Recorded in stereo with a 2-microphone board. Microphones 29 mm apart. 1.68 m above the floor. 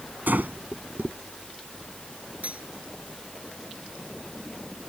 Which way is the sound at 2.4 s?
55° right (ahead or behind).